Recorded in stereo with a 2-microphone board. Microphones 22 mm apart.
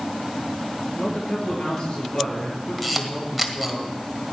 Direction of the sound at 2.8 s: Centre (ahead or behind).